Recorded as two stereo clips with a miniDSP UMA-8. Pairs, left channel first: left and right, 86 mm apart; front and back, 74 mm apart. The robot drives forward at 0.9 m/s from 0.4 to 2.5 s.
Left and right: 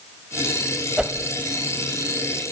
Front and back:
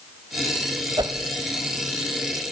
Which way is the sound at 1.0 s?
170° right.